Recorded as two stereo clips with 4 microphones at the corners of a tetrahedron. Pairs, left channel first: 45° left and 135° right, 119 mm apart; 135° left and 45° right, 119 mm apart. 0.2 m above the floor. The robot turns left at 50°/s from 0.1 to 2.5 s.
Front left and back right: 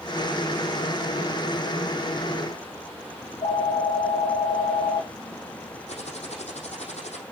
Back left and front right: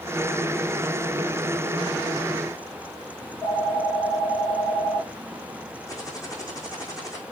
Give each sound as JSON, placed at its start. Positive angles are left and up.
{"t": 3.2, "sound": "a phone ringing", "azimuth_deg": 70, "distance_m": 1.6}
{"t": 5.9, "sound": "typing on a keyboard", "azimuth_deg": 75, "distance_m": 4.0}